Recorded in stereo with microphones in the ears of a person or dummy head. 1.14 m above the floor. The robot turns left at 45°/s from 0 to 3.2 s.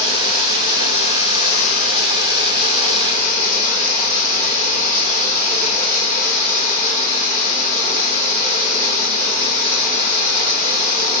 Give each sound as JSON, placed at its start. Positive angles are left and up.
{"t": 0.0, "sound": "running water", "azimuth_deg": 170, "distance_m": 3.0}